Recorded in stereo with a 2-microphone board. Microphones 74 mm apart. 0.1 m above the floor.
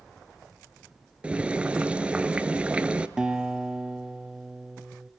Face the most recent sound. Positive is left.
turn(degrees=-10)  # may be behind; listen again after turning